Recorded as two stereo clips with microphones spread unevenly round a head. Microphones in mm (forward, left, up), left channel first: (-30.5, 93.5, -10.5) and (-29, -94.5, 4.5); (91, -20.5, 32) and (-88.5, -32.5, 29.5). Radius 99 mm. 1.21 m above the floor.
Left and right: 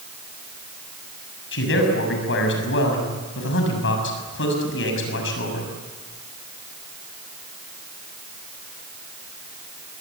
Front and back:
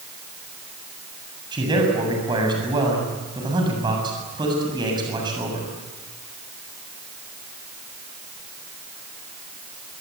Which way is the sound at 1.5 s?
115° left.